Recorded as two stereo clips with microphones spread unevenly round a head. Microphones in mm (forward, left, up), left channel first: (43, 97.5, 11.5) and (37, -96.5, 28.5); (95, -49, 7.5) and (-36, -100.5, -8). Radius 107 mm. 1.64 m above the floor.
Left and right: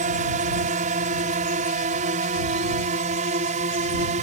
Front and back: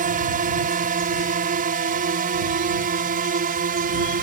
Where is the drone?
145° right; by 4.2 s 150° right.